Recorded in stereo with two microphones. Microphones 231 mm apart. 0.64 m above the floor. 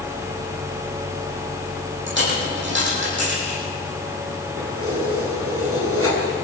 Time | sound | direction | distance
2.1 | a dropped coin | 55° right (ahead or behind) | 9 m
4.6 | keys jangling | 80° right | 5 m